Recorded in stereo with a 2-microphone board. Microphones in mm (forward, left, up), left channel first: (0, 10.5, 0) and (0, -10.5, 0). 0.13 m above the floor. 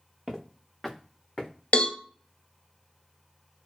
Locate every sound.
0.3 s footsteps: 30° right (ahead or behind), 1.1 m; by 1.5 s 15° left (ahead or behind), 0.9 m
1.7 s a cowbell: 50° left (ahead or behind), 0.8 m